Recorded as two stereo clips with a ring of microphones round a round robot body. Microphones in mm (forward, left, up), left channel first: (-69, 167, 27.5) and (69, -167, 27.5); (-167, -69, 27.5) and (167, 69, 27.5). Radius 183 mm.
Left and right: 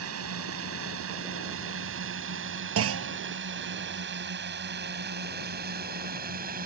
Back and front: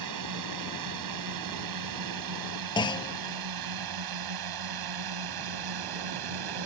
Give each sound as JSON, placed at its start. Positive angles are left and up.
{"t": 0.0, "sound": "a drone", "azimuth_deg": -15}
{"t": 2.8, "sound": "a clunk", "azimuth_deg": -85}